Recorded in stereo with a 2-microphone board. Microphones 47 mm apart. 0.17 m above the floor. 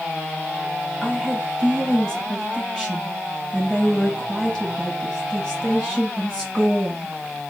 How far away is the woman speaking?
About 1.7 m.